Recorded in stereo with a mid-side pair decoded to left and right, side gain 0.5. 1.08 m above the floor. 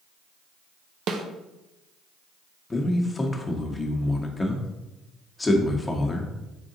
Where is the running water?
No running water in this recording.